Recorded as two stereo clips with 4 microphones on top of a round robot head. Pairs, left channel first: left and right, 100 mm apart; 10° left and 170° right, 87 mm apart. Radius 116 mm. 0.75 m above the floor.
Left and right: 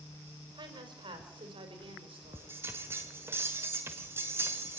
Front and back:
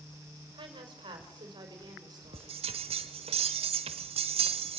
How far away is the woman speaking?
About 4 m.